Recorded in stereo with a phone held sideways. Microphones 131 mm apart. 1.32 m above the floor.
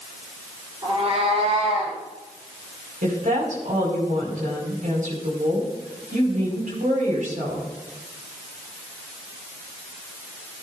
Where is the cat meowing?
45° right (ahead or behind), 6 m; by 2.0 s 60° right (ahead or behind), 6.5 m.